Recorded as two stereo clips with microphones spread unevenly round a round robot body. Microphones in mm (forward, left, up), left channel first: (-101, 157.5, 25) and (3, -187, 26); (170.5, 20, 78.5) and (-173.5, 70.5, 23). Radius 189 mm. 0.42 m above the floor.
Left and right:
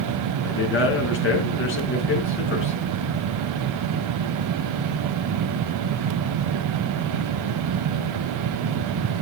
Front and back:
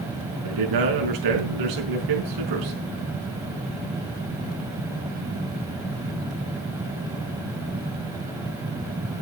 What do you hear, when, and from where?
0.4 s a man speaking: 165° left, 4.5 m